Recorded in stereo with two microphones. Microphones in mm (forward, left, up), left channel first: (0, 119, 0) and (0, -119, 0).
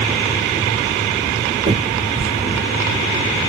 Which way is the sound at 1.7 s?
30° right (ahead or behind).